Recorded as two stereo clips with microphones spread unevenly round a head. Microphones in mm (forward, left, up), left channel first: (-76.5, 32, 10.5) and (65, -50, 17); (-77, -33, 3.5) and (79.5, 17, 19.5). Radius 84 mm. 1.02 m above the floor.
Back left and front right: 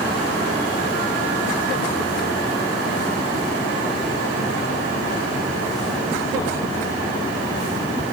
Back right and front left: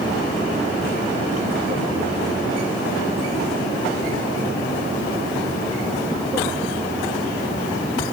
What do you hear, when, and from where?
Only background noise.